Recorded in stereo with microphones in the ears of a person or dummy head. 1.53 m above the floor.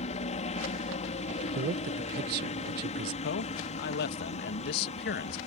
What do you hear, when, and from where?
0.0 s a helicopter: 35° left (ahead or behind)
1.6 s a man speaking: 55° right (ahead or behind)
3.2 s a man speaking: 60° left (ahead or behind)